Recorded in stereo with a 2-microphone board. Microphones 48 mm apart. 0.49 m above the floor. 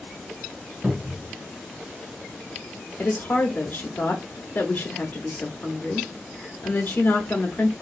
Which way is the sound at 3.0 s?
40° left (ahead or behind).